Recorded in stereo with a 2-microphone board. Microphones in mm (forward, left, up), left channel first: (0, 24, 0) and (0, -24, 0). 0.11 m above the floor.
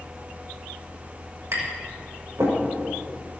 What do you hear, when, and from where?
1.5 s tapping: 75° right (ahead or behind), 5.5 m